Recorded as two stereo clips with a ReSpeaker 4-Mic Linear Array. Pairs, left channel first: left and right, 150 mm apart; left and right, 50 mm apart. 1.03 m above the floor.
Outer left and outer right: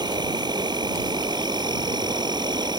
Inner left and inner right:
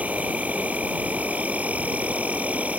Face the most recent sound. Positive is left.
turn(degrees=-30)  # may be behind; listen again after turning